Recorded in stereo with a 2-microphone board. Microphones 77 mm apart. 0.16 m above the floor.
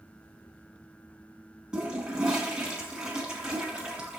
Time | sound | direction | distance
1.7 | a toilet flushing | 10° right (ahead or behind) | 1.7 m